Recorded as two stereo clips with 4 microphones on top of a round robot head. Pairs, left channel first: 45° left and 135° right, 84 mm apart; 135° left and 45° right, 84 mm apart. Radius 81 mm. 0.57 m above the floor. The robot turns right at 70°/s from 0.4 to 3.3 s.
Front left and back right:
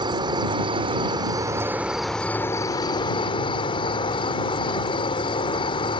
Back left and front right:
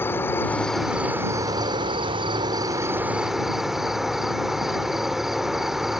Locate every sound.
0.0 s an insect: 160° right; by 6.0 s 45° left